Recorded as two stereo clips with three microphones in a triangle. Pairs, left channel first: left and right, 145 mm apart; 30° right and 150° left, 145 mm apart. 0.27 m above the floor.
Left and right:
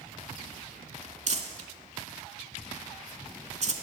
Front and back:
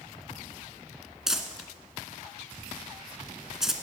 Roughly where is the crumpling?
Behind right.